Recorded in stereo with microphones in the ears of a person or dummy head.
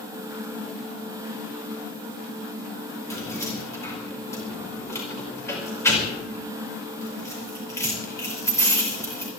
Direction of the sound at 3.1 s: 20° left (ahead or behind).